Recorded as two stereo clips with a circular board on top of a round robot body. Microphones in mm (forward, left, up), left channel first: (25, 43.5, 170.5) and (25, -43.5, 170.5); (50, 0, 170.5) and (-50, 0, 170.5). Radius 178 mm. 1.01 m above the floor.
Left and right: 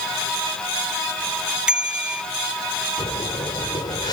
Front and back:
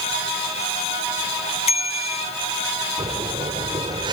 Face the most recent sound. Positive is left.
turn(degrees=135)